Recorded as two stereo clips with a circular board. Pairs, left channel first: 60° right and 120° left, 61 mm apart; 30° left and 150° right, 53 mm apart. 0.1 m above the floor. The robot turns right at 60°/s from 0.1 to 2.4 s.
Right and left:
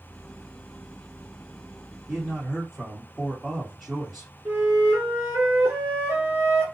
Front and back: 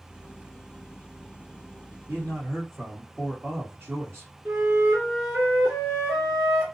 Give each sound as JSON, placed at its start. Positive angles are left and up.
{"t": 2.1, "sound": "a man speaking", "azimuth_deg": -165, "distance_m": 2.0}
{"t": 4.5, "sound": "a flute", "azimuth_deg": 155, "distance_m": 2.0}